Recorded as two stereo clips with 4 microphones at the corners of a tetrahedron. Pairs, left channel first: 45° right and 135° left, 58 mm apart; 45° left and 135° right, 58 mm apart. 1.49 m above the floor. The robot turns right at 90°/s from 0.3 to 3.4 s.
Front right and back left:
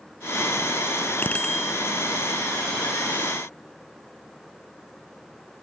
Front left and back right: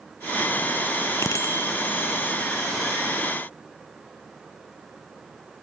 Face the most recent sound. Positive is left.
turn(degrees=-150)